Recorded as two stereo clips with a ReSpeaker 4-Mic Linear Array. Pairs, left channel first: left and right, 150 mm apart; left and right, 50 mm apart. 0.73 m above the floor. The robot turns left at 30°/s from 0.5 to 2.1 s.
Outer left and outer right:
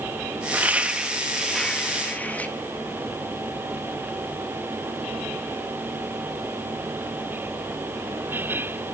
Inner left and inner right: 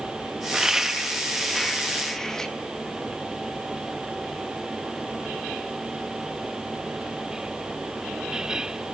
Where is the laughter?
10° right (ahead or behind), 0.8 m; by 2.5 s 10° left (ahead or behind), 0.8 m.